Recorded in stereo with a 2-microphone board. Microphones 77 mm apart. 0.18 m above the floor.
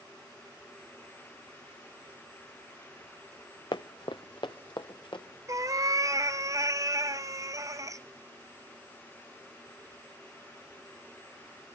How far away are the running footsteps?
About 0.6 m.